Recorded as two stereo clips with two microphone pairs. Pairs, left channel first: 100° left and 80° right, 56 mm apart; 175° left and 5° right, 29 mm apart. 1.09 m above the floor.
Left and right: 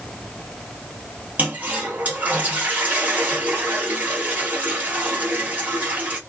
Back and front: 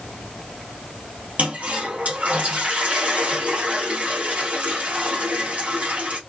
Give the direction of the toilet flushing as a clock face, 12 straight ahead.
1 o'clock.